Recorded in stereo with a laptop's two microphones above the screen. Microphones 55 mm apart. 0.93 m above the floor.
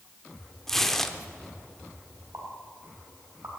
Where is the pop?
85° right, 3 m.